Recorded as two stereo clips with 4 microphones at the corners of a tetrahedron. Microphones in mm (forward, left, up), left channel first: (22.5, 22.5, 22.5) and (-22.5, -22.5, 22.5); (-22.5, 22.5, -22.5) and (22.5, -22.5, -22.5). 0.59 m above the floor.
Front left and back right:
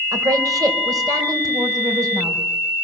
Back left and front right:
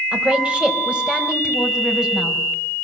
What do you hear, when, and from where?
0.1 s a woman speaking: 120° right, 3.5 m; by 2.4 s 125° right, 4.5 m